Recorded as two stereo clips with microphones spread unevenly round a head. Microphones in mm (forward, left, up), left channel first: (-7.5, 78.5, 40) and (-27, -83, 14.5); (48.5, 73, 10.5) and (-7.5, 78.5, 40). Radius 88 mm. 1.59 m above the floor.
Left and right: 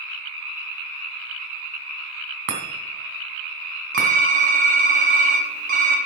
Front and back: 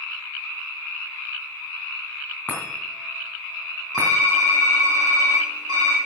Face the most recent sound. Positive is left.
turn(degrees=-140)